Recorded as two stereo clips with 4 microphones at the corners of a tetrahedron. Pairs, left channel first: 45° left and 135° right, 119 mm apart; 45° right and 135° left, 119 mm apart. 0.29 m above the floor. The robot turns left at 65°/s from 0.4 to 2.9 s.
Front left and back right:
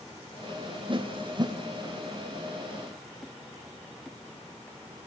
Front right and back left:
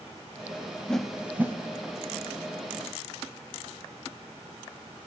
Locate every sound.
0.9 s a whoosh: 130° right, 0.8 m; by 1.6 s 170° right, 0.8 m